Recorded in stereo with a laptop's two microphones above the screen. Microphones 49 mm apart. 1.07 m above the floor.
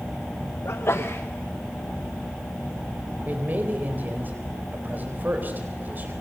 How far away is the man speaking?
About 4 m.